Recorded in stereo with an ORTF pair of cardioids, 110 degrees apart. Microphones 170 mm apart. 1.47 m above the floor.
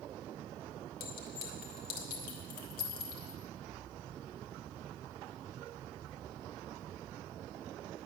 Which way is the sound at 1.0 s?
65° left.